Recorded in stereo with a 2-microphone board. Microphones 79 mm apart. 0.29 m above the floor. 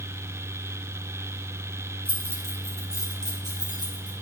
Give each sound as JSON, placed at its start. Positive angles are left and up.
{"t": 2.0, "sound": "keys jangling", "side_deg": -25, "distance_m": 2.0}